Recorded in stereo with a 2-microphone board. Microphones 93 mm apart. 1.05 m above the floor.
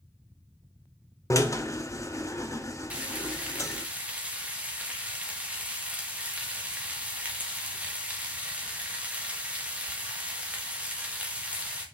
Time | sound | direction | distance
1.3 | a drill | 35° left (ahead or behind) | 0.7 m
2.9 | frying | 15° right (ahead or behind) | 1.7 m